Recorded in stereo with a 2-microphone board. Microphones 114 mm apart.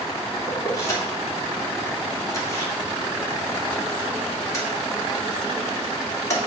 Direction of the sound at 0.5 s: 30° left (ahead or behind).